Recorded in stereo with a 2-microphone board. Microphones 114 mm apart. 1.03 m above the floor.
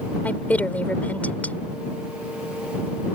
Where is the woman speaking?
15° left (ahead or behind).